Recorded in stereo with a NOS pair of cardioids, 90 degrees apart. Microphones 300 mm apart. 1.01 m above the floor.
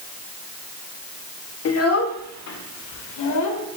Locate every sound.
1.6 s a child speaking: 50° left, 1.4 m; by 3.8 s 75° left, 2.5 m